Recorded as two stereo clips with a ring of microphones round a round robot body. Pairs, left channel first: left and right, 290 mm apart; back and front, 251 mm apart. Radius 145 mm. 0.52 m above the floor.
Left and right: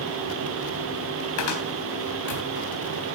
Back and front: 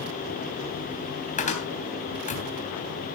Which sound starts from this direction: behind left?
A cupboard door, at 1.4 s.